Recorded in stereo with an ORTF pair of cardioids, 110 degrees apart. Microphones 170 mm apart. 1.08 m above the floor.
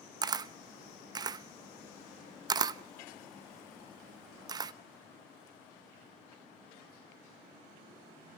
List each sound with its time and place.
0.2 s a camera shutter: 25° right, 0.7 m